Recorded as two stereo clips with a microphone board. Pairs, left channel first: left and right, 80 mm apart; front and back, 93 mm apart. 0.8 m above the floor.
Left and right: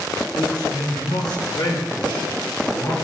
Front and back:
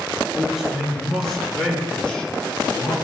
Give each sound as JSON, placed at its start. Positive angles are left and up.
{"t": 0.3, "sound": "a man speaking", "azimuth_deg": 95, "distance_m": 6.5}